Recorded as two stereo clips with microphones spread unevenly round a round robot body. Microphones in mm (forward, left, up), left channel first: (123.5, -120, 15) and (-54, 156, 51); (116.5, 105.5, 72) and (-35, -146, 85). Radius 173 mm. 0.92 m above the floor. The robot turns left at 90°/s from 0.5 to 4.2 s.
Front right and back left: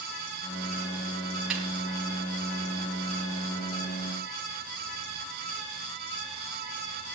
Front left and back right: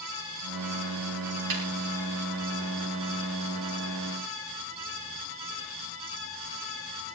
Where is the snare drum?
150° right, 5.5 m; by 1.7 s 160° right, 5.5 m.